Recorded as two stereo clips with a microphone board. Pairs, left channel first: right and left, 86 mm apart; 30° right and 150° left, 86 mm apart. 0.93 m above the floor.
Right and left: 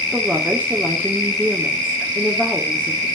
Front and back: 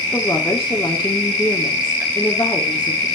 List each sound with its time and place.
0.1 s a woman speaking: 20° left, 2.5 m